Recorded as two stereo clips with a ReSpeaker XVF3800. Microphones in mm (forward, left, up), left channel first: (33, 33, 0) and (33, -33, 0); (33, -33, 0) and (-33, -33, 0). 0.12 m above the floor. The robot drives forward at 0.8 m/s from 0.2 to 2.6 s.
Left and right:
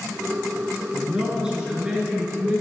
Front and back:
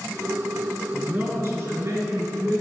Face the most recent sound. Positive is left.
turn(degrees=-165)